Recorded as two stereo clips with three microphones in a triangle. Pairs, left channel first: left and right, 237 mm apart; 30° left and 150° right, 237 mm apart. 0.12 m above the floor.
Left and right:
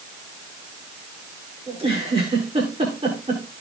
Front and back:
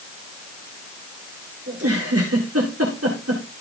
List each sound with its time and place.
1.7 s a giggle: 155° right, 7.5 m